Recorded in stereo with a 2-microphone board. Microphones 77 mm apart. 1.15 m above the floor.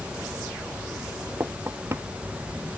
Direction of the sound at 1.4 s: 35° right (ahead or behind).